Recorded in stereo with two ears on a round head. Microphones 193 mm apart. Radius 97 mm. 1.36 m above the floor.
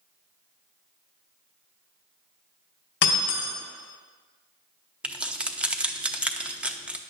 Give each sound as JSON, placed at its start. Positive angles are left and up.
{"t": 3.0, "sound": "breaking glass", "side_deg": 55, "distance_m": 2.5}
{"t": 5.0, "sound": "keys jangling", "side_deg": -5, "distance_m": 0.7}